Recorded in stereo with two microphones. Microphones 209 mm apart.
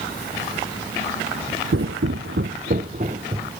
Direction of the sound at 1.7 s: 70° right (ahead or behind).